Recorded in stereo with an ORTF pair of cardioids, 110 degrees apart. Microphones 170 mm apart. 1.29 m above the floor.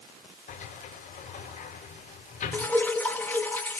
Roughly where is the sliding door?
Ahead left.